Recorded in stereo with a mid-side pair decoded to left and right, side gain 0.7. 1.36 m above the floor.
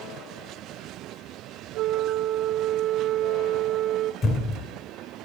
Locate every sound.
1.7 s a flute: 55° right, 0.7 m
4.2 s a thud: 35° left, 2.5 m